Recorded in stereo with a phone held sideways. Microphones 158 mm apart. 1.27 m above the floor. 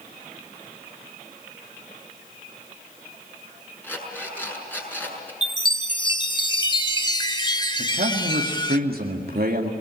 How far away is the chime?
About 1.0 m.